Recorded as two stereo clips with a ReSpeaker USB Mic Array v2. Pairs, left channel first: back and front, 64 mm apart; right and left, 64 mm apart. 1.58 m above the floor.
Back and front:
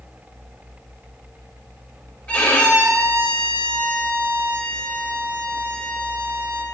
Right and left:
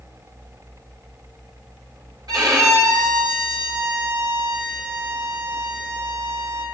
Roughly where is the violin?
Left.